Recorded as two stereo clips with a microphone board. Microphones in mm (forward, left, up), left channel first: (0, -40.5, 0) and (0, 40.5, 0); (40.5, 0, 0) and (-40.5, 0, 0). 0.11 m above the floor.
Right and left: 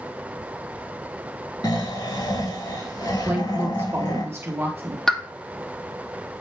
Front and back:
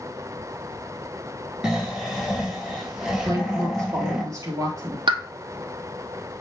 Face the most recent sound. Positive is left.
turn(degrees=-175)